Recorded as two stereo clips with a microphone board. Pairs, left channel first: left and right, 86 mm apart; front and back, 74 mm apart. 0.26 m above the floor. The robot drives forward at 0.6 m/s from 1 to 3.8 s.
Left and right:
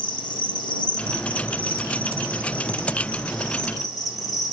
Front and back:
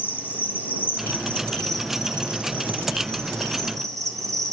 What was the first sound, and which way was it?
An insect, 65° left.